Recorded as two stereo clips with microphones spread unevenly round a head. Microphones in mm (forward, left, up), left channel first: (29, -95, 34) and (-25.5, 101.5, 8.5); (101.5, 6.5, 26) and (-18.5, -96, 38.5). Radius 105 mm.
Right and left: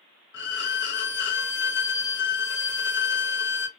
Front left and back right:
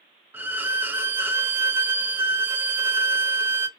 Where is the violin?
60° right, 0.6 m.